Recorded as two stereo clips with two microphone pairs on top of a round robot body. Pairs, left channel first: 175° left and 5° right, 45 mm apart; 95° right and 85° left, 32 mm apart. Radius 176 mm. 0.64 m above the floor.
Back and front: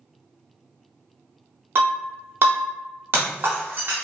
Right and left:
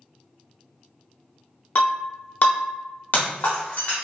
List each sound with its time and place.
1.8 s breaking glass: 50° right, 0.5 m